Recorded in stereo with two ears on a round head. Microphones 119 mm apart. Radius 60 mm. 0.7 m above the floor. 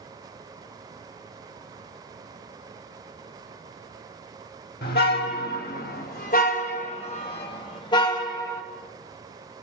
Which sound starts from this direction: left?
A car horn, at 4.8 s.